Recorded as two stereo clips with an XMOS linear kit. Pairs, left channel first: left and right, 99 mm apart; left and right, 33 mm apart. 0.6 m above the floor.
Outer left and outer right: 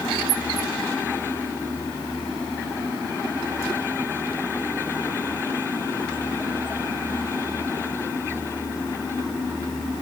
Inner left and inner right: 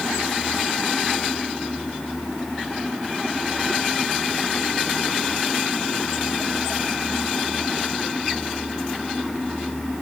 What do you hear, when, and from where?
Only background noise.